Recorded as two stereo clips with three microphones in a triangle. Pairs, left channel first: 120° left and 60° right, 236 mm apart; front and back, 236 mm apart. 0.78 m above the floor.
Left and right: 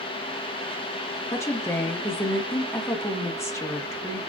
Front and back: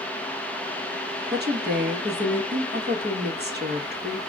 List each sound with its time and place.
1.3 s a woman speaking: 165° right, 0.9 m